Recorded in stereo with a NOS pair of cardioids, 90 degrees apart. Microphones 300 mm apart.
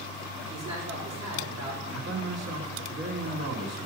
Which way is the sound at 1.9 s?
65° right.